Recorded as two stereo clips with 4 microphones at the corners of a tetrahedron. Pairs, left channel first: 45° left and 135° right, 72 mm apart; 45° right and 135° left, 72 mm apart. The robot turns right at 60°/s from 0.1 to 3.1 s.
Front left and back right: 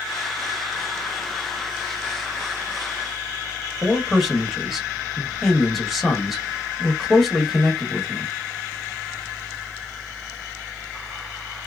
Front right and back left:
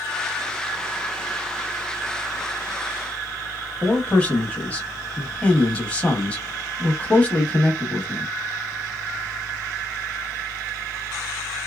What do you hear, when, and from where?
3.8 s a man speaking: 45° right, 0.9 m